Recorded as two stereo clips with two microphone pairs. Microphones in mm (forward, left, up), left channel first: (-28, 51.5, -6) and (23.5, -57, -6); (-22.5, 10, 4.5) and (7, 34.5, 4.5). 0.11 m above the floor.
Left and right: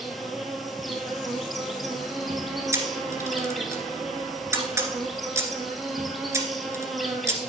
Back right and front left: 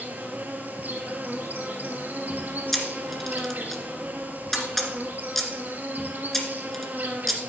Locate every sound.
0.0 s an insect: 25° left, 1.5 m
2.7 s a camera shutter: 65° right, 1.8 m